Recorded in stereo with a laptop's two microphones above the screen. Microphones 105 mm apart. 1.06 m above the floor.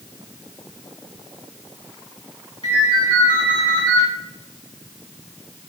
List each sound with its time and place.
2.6 s a ringtone: 45° left (ahead or behind), 2 m